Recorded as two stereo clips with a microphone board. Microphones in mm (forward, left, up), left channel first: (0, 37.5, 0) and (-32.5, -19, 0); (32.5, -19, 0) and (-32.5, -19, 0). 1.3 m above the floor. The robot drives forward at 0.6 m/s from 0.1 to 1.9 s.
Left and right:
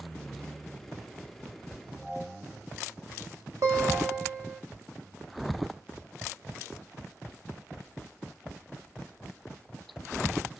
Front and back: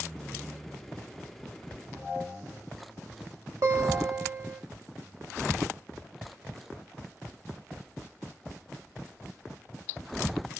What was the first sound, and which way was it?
A guitar, 150° right.